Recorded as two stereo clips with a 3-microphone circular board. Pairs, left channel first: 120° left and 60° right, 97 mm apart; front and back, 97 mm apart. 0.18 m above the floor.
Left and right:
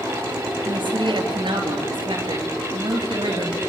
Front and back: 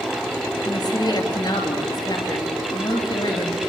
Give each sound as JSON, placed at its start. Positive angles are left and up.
{"t": 0.7, "sound": "a woman speaking", "azimuth_deg": -35, "distance_m": 4.0}